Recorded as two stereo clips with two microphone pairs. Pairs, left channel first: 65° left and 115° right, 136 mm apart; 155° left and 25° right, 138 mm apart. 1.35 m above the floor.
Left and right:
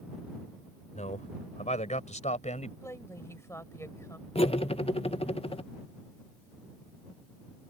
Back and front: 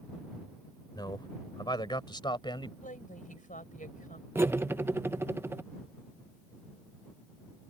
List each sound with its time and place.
0.9 s a man speaking: 95° left; by 2.7 s 100° left
2.8 s a woman speaking: 135° left
4.3 s cutlery clinking: 45° left